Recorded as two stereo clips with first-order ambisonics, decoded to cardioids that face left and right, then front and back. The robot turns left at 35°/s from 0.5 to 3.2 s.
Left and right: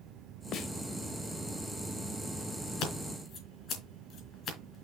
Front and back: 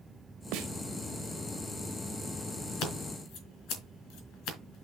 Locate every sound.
0.5 s a snare drum: 145° left, 0.7 m; by 0.7 s 140° left, 0.7 m
2.8 s scissors: 45° left, 3.5 m; by 4.8 s 30° left, 3.5 m